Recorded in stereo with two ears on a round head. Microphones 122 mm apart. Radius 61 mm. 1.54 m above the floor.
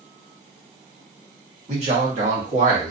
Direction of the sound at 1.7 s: 50° right (ahead or behind).